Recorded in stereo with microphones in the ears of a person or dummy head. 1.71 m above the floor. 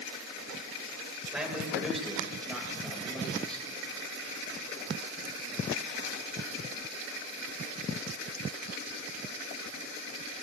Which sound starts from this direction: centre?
A man speaking, at 1.3 s.